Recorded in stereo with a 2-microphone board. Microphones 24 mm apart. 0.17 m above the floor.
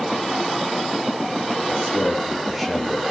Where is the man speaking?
10° right (ahead or behind), 3.5 m.